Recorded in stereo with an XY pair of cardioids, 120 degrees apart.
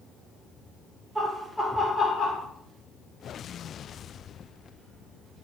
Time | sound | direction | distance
1.1 | laughter | 15° right | 0.8 m